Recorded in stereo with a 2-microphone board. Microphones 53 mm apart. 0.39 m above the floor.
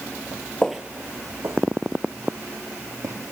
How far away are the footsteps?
About 0.5 m.